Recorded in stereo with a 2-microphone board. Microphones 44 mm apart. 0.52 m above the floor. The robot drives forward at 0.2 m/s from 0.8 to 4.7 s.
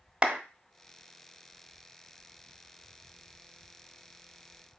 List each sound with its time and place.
0.2 s a clap: 20° right (ahead or behind), 1.0 m